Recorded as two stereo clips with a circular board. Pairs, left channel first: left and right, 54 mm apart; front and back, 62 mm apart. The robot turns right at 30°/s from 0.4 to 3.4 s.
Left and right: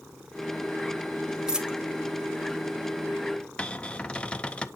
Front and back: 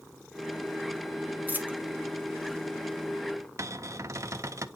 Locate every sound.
1.5 s a dropped coin: 155° right, 1.0 m; by 1.8 s 150° right, 1.0 m
3.6 s a cupboard door: 155° left, 0.5 m